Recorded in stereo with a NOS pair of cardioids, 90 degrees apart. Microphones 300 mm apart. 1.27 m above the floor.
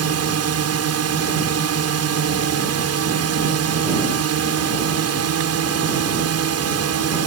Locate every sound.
0.0 s a drone: 60° right